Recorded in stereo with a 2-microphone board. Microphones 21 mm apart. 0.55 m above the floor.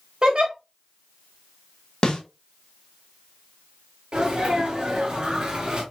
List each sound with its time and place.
0.2 s a giggle: 45° right (ahead or behind), 2 m
2.0 s a snare drum: 50° left (ahead or behind), 1.8 m
4.1 s a sneeze: 50° right (ahead or behind), 2.5 m